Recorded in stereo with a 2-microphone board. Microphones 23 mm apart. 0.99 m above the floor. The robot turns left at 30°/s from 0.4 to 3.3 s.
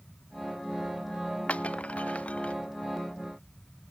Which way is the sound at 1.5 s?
70° left (ahead or behind).